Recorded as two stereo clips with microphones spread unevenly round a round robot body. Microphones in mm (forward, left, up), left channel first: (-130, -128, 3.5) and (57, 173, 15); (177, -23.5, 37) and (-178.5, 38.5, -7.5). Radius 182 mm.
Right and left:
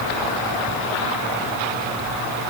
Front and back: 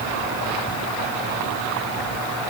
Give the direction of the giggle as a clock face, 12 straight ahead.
No giggle in this recording.